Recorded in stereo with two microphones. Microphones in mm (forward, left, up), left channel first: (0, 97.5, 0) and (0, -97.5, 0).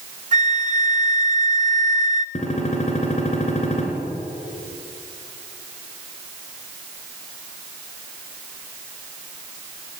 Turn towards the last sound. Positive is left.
turn(degrees=35)  # may be behind; listen again after turning